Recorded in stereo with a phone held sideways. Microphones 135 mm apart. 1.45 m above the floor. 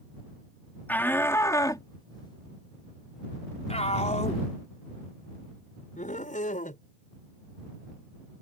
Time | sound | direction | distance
0.9 | a shout | 15° left (ahead or behind) | ?